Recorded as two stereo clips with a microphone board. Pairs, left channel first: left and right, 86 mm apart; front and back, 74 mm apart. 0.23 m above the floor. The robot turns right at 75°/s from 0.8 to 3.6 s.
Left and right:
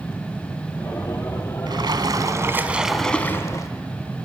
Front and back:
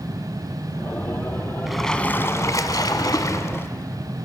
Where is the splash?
95° right, 1.1 m; by 3.7 s 50° left, 1.1 m.